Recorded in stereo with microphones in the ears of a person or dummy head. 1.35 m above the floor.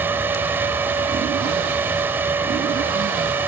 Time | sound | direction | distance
0.0 | a fan | 10° right (ahead or behind) | ?